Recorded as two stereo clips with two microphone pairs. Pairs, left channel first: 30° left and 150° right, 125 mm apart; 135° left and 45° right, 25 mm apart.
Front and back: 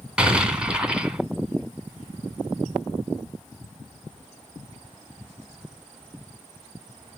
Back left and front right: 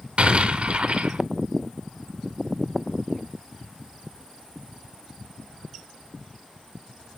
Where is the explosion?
70° right, 2 m.